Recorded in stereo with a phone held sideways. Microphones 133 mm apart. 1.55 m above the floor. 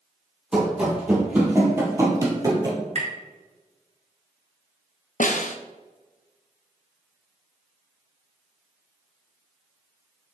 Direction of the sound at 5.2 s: 75° left (ahead or behind).